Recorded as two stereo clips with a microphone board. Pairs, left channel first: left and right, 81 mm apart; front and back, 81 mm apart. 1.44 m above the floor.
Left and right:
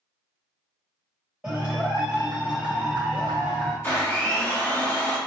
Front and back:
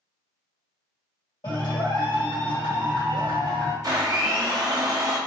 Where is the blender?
150° left, 0.8 m.